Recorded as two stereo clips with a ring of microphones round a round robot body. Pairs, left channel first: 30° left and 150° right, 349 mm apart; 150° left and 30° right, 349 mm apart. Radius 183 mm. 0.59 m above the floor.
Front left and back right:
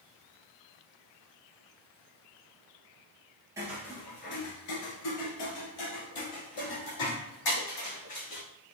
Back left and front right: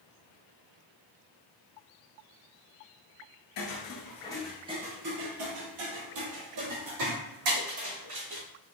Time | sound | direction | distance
3.6 | footsteps | 130° left | 0.8 m